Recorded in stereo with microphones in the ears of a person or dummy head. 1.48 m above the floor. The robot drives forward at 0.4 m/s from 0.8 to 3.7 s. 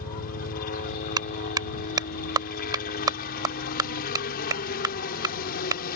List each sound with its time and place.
0.0 s a helicopter: 50° left (ahead or behind)
1.2 s a clap: 20° right (ahead or behind)